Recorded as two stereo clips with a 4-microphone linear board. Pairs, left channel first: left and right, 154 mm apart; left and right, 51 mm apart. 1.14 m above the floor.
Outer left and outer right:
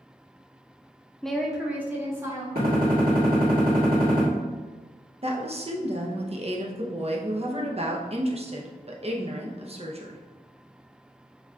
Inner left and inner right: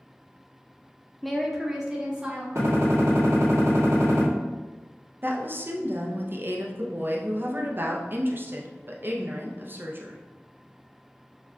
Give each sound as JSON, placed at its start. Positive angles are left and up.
{"t": 1.2, "sound": "a woman speaking", "side_deg": 5, "distance_m": 0.6}
{"t": 2.5, "sound": "a gunshot", "side_deg": -70, "distance_m": 1.7}
{"t": 5.2, "sound": "a woman speaking", "side_deg": -40, "distance_m": 0.7}